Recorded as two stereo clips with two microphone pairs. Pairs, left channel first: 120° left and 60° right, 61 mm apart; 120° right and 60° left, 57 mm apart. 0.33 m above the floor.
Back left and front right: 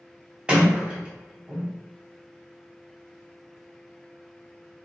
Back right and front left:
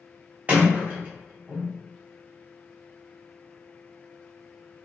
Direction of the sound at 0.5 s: 5° left.